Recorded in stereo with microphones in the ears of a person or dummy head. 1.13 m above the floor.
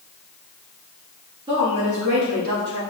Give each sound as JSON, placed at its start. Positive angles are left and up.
{"t": 1.5, "sound": "a woman speaking", "side_deg": -30, "distance_m": 2.0}